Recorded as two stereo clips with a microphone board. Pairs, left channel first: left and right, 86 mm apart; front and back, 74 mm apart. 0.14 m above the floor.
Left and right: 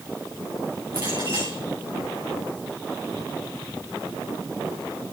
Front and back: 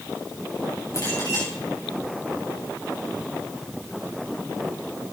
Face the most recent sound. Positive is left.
turn(degrees=-45)